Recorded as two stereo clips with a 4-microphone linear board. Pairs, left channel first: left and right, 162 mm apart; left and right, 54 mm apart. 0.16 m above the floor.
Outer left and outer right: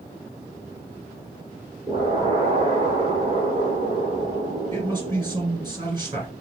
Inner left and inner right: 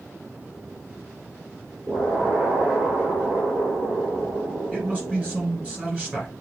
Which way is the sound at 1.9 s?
30° right (ahead or behind).